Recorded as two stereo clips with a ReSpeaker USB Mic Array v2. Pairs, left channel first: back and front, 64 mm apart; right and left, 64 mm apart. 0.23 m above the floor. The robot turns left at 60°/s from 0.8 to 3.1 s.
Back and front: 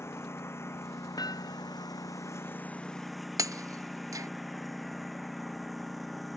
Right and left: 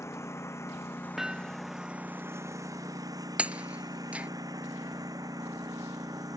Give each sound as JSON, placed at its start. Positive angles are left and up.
{"t": 0.0, "sound": "a lawn mower", "azimuth_deg": -130}
{"t": 1.2, "sound": "hammering", "azimuth_deg": 175}
{"t": 3.4, "sound": "breaking glass", "azimuth_deg": 20}